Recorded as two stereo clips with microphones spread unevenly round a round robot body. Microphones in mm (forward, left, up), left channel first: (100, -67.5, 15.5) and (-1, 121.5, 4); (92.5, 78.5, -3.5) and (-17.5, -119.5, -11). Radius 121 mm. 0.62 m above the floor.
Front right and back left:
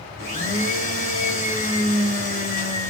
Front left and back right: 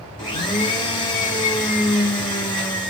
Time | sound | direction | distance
0.2 | a blender | 10° right | 1.5 m